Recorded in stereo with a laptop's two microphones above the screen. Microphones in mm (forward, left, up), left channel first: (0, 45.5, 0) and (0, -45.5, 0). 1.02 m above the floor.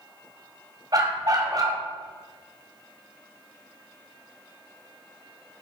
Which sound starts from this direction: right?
A dog barking, at 0.9 s.